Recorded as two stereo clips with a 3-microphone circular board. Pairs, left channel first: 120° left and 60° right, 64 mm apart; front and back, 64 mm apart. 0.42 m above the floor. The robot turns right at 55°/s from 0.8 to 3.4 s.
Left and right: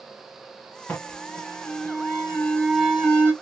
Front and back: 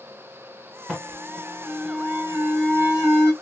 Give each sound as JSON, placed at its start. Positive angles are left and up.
{"t": 0.9, "sound": "an alarm", "azimuth_deg": 110, "distance_m": 2.0}